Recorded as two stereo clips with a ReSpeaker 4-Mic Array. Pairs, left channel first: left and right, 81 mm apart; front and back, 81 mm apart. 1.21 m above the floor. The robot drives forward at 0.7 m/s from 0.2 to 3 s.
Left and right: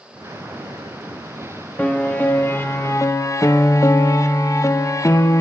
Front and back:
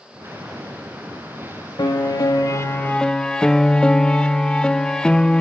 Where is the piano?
20° left, 1.1 m; by 5.4 s 75° left, 0.5 m.